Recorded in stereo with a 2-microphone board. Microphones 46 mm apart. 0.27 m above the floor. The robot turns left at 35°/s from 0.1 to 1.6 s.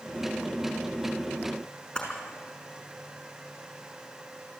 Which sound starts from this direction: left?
A camera shutter, at 1.9 s.